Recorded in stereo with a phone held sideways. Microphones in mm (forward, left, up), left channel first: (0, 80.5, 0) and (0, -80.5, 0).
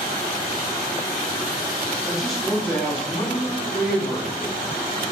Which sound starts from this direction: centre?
A man speaking, at 2.0 s.